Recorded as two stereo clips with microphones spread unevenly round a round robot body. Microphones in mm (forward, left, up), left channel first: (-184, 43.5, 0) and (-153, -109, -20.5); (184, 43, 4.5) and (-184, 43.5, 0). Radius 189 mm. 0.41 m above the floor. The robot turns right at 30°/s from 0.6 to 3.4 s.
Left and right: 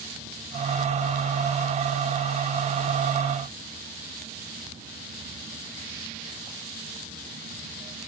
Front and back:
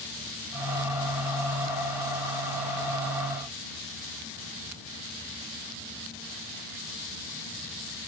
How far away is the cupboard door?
I don't hear a cupboard door.